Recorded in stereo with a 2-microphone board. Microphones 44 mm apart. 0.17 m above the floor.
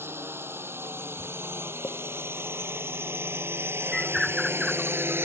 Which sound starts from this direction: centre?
A bird, at 3.9 s.